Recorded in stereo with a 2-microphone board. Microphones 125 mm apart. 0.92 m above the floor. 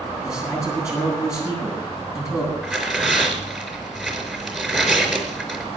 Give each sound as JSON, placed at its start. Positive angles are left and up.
{"t": 0.2, "sound": "a man speaking", "side_deg": 25, "distance_m": 7.5}
{"t": 2.6, "sound": "tearing paper", "side_deg": 5, "distance_m": 4.5}